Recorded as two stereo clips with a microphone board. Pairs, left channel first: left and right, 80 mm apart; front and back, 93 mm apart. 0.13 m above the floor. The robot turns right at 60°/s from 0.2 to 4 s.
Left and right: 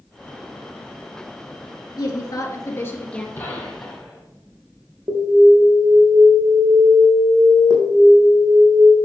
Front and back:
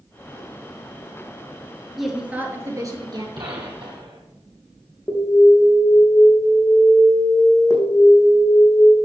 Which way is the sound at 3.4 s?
150° left.